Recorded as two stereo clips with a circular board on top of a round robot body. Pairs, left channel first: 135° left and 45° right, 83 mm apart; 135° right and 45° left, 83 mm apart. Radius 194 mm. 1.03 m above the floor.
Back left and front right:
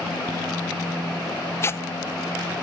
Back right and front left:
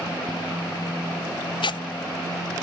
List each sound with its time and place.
1.6 s tearing paper: 165° right